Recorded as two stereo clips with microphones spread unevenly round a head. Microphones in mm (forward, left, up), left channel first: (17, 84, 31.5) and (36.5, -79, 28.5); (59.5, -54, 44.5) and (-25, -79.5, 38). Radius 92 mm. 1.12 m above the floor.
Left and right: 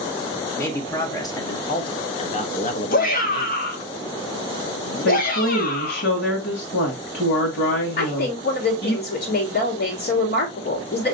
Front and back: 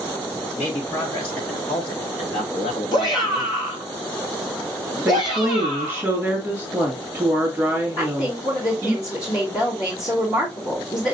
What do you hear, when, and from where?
0.6 s a man speaking: 20° left, 1.9 m; by 3.6 s 90° left, 0.9 m
2.9 s a shout: 65° left, 1.3 m
5.0 s a woman speaking: 95° left, 1.8 m
8.0 s a woman speaking: 70° left, 2 m